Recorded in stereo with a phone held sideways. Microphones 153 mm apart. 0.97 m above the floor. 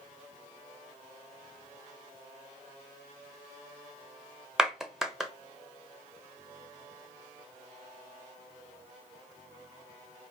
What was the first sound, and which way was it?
A clap, 5° right (ahead or behind).